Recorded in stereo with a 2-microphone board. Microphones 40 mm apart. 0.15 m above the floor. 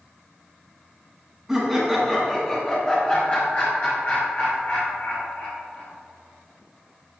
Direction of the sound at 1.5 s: 10° right (ahead or behind).